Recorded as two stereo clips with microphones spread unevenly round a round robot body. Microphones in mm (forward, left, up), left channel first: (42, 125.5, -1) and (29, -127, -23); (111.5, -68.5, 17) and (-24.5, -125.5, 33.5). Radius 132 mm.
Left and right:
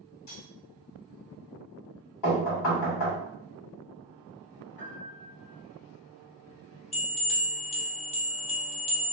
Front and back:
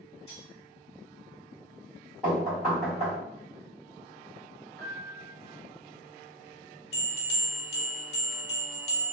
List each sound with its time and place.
0.3 s cutlery clinking: 110° left, 1.6 m
2.2 s knocking: 105° left, 1.5 m
4.8 s a piano: 115° left, 1.8 m
6.9 s a bell: 25° left, 0.6 m